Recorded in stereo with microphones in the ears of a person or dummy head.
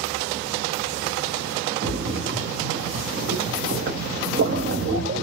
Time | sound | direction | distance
1.8 | a splash | 40° right (ahead or behind) | 0.8 m